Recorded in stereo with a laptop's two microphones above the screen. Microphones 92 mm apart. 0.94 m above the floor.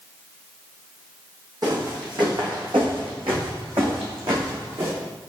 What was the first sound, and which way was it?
Footsteps, 50° right (ahead or behind).